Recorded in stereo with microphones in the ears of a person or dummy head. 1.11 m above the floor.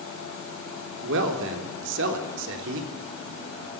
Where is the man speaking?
65° right (ahead or behind), 3.5 m.